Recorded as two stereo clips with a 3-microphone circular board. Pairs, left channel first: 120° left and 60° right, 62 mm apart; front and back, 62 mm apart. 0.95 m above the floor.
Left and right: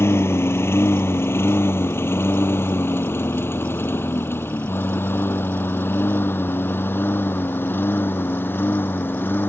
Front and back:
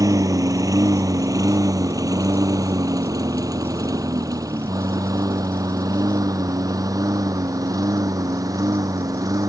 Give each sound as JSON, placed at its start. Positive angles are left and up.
{"t": 0.0, "sound": "a lawn mower", "azimuth_deg": 165}